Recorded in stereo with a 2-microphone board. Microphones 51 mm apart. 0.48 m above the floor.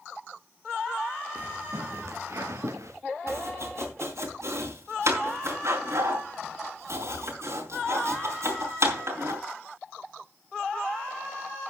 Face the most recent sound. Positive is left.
turn(degrees=-65)  # may be behind; listen again after turning